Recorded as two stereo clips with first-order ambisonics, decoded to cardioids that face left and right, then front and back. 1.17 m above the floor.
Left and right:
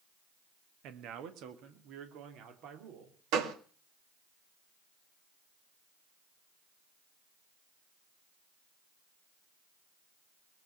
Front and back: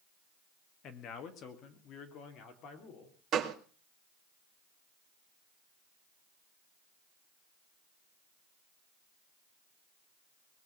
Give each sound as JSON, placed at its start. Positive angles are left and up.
{"t": 0.8, "sound": "a man speaking", "azimuth_deg": -50, "distance_m": 1.7}
{"t": 3.3, "sound": "a gunshot", "azimuth_deg": -125, "distance_m": 2.0}